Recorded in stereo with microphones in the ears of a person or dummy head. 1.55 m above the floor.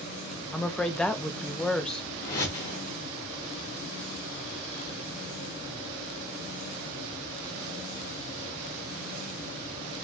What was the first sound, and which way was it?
A woman speaking, 10° left (ahead or behind).